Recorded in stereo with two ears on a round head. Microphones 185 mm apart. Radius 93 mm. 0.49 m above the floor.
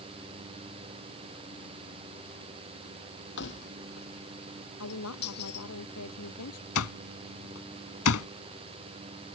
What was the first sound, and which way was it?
Keys jangling, 60° left (ahead or behind).